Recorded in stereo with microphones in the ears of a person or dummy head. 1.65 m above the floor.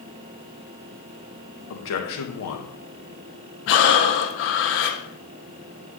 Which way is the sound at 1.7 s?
70° left (ahead or behind).